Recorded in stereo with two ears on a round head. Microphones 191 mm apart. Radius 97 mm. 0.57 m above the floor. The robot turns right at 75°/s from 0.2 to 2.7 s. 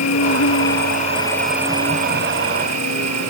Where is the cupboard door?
I don't hear a cupboard door.